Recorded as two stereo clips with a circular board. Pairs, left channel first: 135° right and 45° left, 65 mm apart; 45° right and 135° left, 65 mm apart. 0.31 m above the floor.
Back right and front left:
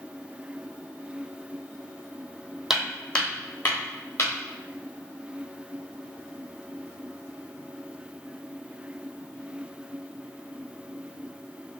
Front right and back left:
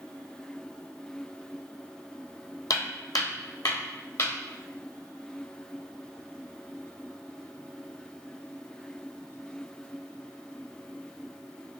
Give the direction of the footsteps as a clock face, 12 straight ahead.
1 o'clock.